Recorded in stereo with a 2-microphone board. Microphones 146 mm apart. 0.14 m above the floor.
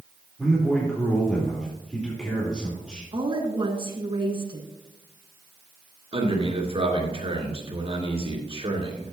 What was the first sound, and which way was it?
A man speaking, 5° left (ahead or behind).